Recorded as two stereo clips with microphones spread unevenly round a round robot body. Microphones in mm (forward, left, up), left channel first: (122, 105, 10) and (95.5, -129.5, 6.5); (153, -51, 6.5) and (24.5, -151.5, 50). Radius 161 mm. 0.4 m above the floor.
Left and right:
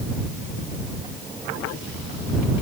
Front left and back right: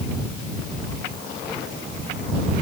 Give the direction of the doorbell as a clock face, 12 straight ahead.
I don't hear a doorbell.